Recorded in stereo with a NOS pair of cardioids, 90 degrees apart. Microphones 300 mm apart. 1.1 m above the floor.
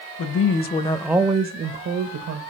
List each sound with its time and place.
0.2 s a woman speaking: 50° left, 1.0 m; by 2.4 s 60° right, 1.4 m